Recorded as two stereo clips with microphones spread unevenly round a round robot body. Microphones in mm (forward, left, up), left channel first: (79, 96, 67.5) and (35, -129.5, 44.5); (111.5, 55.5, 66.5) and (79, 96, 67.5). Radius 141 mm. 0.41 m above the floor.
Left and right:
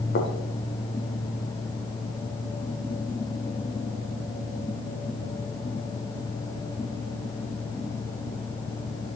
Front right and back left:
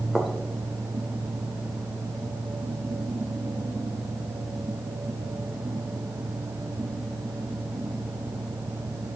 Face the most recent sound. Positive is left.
turn(degrees=35)